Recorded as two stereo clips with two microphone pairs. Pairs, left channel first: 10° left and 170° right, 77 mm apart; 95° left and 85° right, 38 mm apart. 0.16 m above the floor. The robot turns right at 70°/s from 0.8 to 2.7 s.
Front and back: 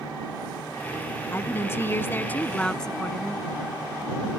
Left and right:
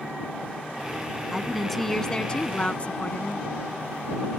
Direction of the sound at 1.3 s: 15° right.